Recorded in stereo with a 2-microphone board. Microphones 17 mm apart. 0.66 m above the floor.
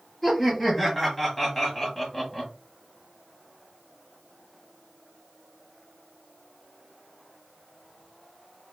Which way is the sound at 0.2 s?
10° left (ahead or behind).